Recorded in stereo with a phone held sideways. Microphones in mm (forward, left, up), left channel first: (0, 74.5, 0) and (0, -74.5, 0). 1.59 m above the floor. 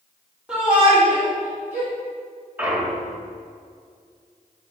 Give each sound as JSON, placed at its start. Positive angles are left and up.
{"t": 0.5, "sound": "a shout", "side_deg": -5, "distance_m": 3.0}
{"t": 2.6, "sound": "a clunk", "side_deg": -10, "distance_m": 1.7}